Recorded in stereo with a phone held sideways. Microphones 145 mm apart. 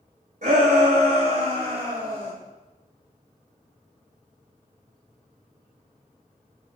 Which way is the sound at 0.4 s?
60° right (ahead or behind).